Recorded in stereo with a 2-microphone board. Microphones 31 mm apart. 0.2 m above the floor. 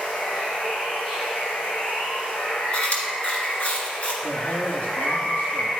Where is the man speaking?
45° left (ahead or behind), 2.5 m.